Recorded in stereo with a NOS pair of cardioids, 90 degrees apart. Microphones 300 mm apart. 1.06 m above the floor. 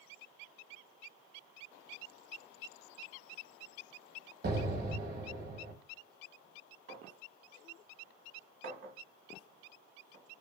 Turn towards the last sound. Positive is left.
turn(degrees=-40)